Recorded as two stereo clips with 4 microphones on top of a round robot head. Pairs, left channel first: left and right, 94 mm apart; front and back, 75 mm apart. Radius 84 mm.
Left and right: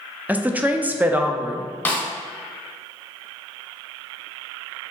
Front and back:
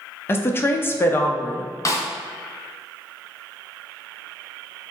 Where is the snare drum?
20° left, 0.9 m.